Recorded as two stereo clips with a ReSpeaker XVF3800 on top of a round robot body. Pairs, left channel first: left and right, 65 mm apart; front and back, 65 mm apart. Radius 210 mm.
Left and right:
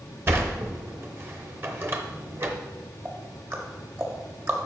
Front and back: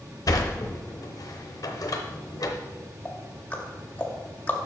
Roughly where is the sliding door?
Ahead right.